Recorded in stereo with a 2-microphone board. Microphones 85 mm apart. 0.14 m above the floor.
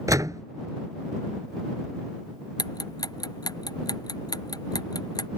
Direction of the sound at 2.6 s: 50° left (ahead or behind).